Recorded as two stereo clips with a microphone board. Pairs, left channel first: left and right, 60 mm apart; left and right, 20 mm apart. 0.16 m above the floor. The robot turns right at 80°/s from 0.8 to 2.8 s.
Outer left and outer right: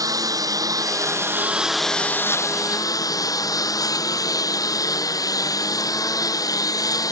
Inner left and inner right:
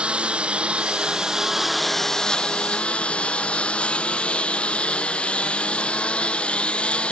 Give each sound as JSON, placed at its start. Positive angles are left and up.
{"t": 0.0, "sound": "a lawn mower", "azimuth_deg": -80}